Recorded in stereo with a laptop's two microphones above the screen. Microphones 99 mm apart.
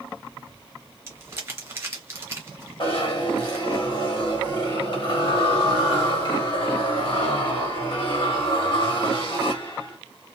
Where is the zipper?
55° left (ahead or behind), 1.3 m.